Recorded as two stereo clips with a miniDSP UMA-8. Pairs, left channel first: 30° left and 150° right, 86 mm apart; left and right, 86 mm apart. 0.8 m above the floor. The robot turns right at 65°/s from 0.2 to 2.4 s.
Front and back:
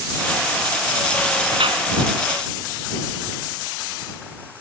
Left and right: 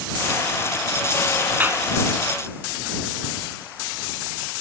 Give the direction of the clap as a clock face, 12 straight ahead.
5 o'clock.